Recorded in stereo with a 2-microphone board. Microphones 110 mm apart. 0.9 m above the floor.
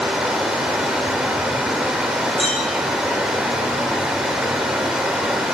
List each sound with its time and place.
0.0 s running water: 5° right (ahead or behind), 2.5 m
2.4 s a clink: 60° left (ahead or behind), 4.5 m